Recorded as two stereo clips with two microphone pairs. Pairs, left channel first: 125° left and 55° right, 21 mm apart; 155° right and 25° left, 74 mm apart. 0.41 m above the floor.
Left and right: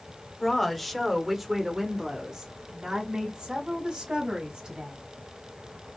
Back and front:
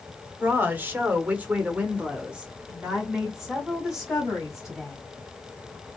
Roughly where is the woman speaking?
Ahead left.